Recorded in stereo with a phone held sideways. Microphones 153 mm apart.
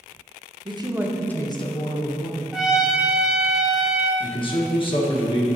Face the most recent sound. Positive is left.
turn(degrees=35)  # may be behind; listen again after turning